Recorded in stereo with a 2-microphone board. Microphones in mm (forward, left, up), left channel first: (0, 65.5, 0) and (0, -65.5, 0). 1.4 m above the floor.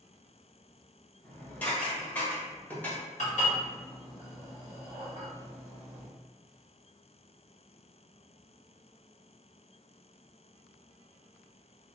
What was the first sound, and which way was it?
Dishes clattering, 15° left (ahead or behind).